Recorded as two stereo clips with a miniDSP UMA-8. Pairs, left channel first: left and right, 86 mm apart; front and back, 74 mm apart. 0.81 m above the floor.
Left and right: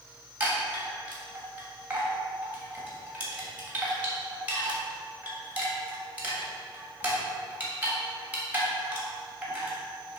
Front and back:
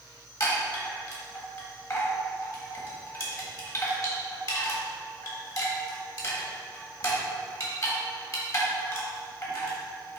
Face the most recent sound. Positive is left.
turn(degrees=-25)